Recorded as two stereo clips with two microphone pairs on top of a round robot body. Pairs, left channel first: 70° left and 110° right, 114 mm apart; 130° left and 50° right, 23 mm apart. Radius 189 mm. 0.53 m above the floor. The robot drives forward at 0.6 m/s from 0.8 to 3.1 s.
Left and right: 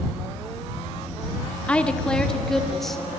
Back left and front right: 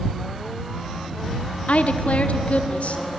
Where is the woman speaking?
150° left, 1.8 m; by 3.0 s 160° left, 2.5 m.